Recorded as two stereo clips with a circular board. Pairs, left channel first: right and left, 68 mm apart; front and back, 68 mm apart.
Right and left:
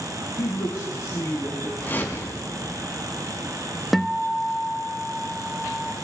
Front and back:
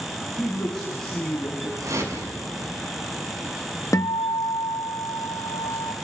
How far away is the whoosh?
About 6 m.